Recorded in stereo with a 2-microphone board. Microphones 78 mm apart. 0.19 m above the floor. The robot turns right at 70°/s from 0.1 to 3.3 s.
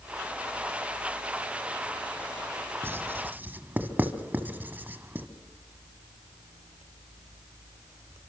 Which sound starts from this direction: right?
Writing, at 2.8 s.